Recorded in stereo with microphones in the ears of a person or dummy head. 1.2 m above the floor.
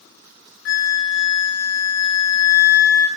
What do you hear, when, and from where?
0.7 s a flute: 65° left (ahead or behind), 0.7 m